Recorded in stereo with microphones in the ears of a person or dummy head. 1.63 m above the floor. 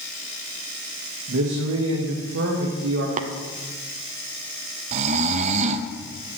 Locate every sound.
1.3 s a man speaking: 75° right (ahead or behind), 2 m
3.2 s tapping: 45° right (ahead or behind), 0.8 m
4.9 s snoring: 40° right (ahead or behind), 0.8 m